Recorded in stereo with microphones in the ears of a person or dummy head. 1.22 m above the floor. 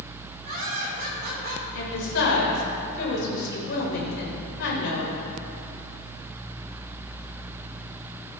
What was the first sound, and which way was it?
Laughter, 55° right (ahead or behind).